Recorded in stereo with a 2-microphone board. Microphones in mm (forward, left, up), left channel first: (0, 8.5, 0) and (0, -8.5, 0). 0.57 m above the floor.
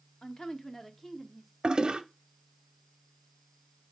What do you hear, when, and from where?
0.2 s a woman speaking: 40° left (ahead or behind), 1.1 m; by 1.5 s 15° left (ahead or behind), 1.3 m
1.6 s a toilet flushing: 55° right (ahead or behind), 0.8 m